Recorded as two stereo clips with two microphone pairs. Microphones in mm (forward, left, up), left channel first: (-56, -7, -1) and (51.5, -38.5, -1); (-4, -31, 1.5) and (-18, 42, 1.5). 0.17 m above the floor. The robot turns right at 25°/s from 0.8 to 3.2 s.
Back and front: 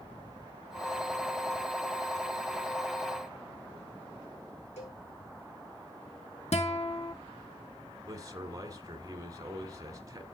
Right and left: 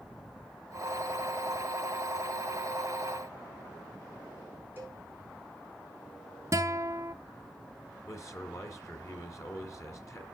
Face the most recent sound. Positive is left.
turn(degrees=-60)